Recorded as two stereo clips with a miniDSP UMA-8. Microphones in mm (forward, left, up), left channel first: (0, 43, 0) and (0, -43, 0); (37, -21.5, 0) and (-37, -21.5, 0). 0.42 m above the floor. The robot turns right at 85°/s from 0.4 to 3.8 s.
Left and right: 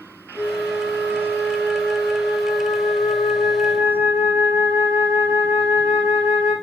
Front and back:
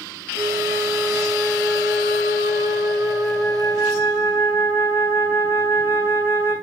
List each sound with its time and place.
0.3 s a flute: 20° left, 3 m; by 6.5 s 55° right, 3 m